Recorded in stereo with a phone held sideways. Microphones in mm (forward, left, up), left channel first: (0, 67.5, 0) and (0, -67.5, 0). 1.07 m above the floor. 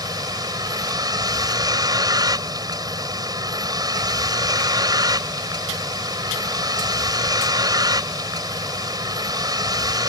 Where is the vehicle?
30° right (ahead or behind).